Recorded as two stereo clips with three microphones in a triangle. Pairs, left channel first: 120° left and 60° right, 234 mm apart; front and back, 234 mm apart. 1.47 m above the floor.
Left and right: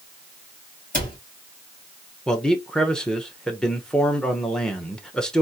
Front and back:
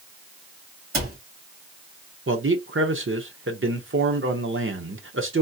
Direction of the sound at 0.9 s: 175° left.